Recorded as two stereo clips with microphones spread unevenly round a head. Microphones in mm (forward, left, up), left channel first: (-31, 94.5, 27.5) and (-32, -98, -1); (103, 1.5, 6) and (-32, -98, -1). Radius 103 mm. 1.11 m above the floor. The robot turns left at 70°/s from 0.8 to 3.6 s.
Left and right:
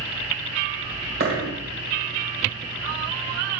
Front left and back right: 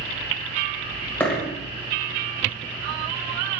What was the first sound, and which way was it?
A dropped coin, 40° right.